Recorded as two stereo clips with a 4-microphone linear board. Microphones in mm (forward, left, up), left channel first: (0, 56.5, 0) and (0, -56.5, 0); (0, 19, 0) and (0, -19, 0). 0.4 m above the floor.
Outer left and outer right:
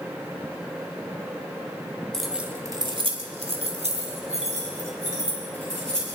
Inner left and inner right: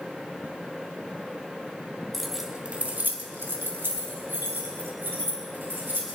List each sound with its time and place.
2.1 s keys jangling: 5° left (ahead or behind), 1.4 m; by 6.1 s 80° right, 6 m